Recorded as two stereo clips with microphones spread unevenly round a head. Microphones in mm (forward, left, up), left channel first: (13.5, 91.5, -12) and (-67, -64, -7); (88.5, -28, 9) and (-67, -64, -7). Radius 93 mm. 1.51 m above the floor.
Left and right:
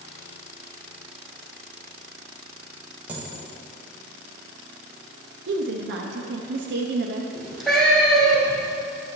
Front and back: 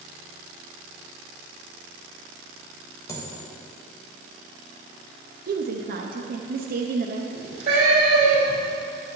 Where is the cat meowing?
155° left, 2.5 m.